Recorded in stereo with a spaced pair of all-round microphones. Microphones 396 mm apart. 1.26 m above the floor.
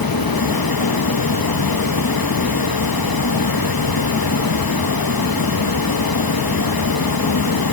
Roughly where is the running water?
Left.